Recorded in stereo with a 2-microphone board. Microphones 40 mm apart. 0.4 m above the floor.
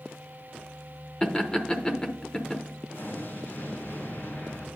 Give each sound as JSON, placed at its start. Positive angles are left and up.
{"t": 1.2, "sound": "laughter", "side_deg": 20, "distance_m": 0.8}
{"t": 2.9, "sound": "an explosion", "side_deg": 65, "distance_m": 3.0}